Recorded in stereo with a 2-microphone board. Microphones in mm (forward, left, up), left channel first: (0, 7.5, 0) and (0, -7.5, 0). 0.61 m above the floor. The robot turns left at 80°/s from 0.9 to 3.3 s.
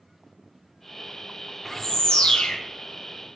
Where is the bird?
165° left, 0.6 m; by 2.6 s 90° left, 0.6 m.